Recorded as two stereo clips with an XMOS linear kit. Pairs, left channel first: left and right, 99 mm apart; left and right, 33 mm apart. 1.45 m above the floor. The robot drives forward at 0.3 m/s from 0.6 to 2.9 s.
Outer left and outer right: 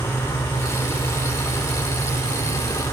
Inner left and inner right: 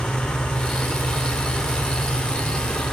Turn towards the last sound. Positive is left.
turn(degrees=30)  # may be behind; listen again after turning